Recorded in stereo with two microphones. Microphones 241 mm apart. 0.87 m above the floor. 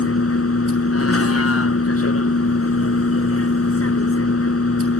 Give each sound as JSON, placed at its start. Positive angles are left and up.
{"t": 0.0, "sound": "a vehicle", "side_deg": 70}